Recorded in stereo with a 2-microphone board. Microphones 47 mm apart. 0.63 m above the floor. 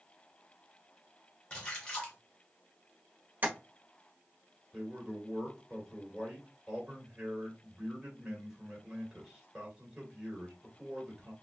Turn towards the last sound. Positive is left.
turn(degrees=-10)  # may be behind; listen again after turning